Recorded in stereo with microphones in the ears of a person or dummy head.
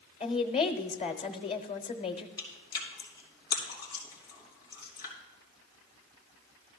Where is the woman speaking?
40° left (ahead or behind), 0.9 m.